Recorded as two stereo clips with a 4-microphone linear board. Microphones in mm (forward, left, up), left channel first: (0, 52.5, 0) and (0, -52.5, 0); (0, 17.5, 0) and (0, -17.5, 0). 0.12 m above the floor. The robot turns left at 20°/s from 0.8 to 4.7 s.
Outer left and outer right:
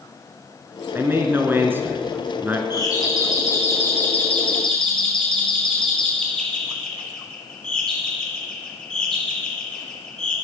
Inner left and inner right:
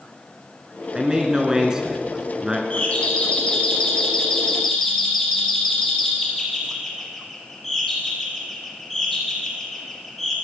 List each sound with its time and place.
0.9 s a man speaking: 20° right (ahead or behind), 1.7 m; by 2.6 s 15° right (ahead or behind), 1.7 m
2.7 s a doorbell: 40° left (ahead or behind), 4 m; by 10.3 s 5° left (ahead or behind), 4 m